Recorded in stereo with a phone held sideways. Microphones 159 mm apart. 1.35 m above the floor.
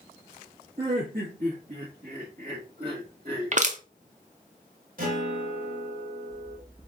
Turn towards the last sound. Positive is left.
turn(degrees=-60)  # may be behind; listen again after turning